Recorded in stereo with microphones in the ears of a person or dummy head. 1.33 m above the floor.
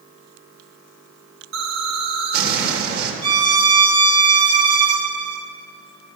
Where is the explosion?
65° right (ahead or behind), 1.8 m.